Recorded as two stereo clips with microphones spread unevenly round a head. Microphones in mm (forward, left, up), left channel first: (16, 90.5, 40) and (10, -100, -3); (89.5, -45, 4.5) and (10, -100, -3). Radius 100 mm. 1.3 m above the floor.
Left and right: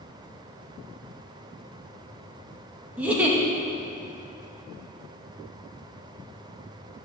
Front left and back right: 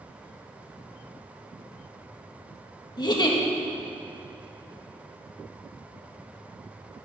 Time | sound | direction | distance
3.0 | a giggle | 10° right | 1.9 m